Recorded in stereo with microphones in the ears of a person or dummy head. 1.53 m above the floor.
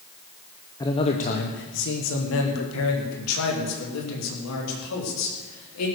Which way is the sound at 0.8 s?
20° left (ahead or behind).